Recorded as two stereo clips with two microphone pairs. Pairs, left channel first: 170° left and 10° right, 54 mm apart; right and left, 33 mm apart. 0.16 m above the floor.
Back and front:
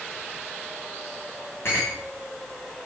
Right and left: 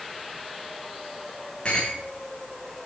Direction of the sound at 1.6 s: 155° right.